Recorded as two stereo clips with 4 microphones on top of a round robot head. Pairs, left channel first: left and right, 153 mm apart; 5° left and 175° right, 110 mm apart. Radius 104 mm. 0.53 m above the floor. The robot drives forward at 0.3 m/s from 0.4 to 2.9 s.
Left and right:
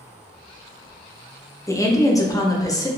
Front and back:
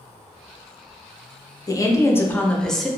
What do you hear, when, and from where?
1.7 s a woman speaking: 35° left, 0.7 m; by 2.9 s 100° left, 0.6 m